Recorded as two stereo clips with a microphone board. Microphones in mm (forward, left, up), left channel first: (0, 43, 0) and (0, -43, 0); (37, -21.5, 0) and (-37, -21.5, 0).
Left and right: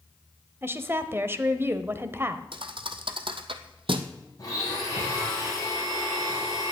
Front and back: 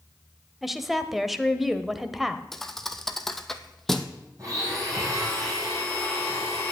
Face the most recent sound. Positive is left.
turn(degrees=140)